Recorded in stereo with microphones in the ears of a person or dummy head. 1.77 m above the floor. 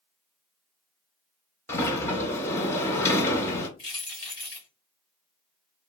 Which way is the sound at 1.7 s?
15° left (ahead or behind).